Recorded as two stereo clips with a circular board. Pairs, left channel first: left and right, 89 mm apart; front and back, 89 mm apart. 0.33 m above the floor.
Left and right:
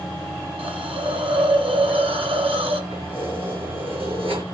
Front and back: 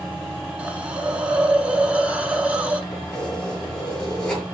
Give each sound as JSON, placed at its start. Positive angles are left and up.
{"t": 0.6, "sound": "a hiss", "azimuth_deg": -100, "distance_m": 0.8}
{"t": 2.9, "sound": "keys jangling", "azimuth_deg": -85, "distance_m": 2.5}